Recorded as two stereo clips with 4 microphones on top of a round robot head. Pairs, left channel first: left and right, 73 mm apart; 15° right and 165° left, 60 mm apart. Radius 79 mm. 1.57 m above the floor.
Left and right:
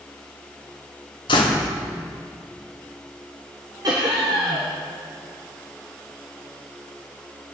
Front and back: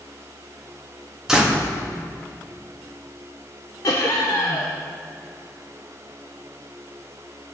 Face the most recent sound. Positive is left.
turn(degrees=-50)